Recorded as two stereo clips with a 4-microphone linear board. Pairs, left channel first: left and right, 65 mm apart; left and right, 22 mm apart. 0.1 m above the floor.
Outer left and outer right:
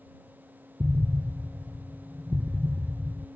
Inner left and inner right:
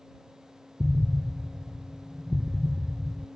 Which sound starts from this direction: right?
An explosion, at 0.8 s.